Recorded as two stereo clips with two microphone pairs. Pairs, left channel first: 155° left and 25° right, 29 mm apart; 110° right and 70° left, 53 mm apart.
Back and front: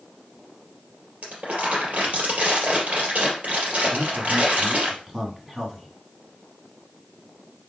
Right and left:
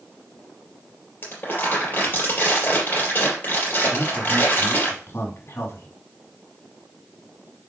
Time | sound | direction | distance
1.2 | crumpling | 60° right | 3.5 m
3.9 | a man speaking | 95° right | 2 m